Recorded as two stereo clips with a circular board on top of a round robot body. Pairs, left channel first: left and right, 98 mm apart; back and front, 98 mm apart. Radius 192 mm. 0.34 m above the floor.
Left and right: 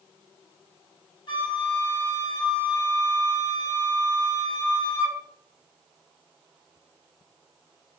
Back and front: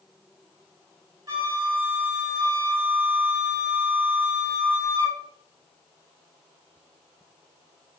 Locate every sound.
1.3 s a flute: 55° left, 1.5 m